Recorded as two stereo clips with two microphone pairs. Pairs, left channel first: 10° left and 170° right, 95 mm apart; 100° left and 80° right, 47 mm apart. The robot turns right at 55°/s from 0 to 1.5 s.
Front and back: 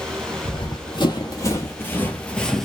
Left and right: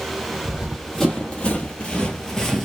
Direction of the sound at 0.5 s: 10° right.